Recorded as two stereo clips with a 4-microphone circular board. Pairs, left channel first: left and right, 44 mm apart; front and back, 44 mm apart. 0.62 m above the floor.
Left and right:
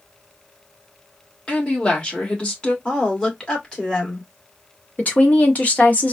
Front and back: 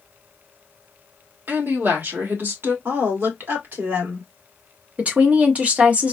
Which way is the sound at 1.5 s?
150° left.